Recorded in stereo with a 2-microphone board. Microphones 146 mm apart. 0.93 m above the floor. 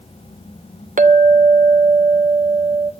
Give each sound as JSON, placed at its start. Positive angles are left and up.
{"t": 1.0, "sound": "a clink", "side_deg": -65, "distance_m": 0.6}